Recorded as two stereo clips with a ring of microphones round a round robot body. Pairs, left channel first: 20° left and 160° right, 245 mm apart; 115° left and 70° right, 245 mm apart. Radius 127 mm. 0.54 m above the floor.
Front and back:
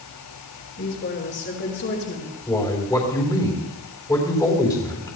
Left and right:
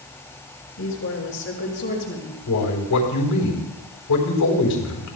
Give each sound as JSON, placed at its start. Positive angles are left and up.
{"t": 0.8, "sound": "a woman speaking", "azimuth_deg": 70, "distance_m": 6.0}
{"t": 2.5, "sound": "a man speaking", "azimuth_deg": 100, "distance_m": 3.5}